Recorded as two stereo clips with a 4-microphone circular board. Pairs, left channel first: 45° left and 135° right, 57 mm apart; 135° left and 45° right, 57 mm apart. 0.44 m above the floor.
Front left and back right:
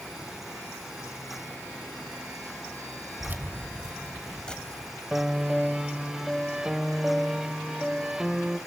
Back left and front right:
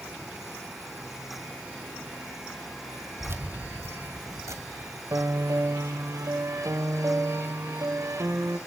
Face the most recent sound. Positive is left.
turn(degrees=-55)